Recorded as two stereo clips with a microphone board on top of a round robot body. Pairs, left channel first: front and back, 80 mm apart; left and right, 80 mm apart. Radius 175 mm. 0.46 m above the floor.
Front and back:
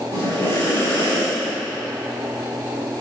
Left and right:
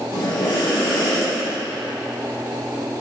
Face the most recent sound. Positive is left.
turn(degrees=65)